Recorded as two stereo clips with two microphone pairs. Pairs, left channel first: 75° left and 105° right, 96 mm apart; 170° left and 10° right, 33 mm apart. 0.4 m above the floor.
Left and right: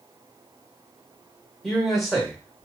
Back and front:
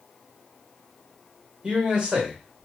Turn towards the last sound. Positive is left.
turn(degrees=-10)